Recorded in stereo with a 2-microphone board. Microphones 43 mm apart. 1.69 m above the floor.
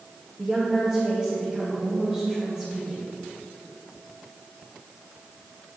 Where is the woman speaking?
15° right (ahead or behind), 2.5 m.